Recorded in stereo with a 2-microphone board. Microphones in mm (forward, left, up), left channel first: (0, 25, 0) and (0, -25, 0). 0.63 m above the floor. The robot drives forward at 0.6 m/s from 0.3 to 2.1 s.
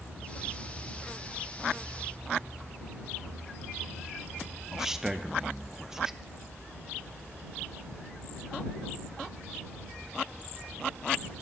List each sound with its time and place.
4.7 s a man speaking: 10° right (ahead or behind), 0.6 m